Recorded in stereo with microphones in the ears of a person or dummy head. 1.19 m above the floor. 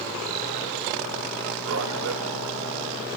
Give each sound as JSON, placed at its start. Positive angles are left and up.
{"t": 1.7, "sound": "a man speaking", "side_deg": -70, "distance_m": 1.7}